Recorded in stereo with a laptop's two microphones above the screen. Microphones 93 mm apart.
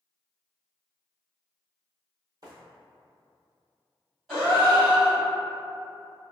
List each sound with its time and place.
2.4 s footsteps: 45° right (ahead or behind), 1.5 m
4.3 s a gasp: 5° right (ahead or behind), 2.0 m